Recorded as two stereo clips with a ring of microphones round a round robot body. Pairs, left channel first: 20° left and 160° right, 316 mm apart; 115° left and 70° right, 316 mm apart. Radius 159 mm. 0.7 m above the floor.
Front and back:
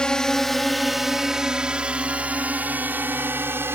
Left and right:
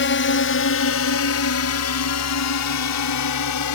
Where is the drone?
110° left; by 3.8 s 120° left.